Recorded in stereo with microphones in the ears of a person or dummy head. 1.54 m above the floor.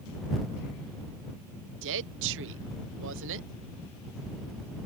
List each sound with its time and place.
1.8 s a woman speaking: 70° right (ahead or behind)